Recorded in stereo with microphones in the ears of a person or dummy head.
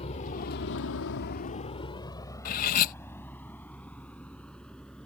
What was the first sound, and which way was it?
A vehicle, 35° left (ahead or behind).